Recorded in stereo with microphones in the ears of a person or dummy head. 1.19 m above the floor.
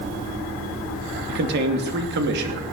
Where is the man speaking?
60° right (ahead or behind), 2.5 m.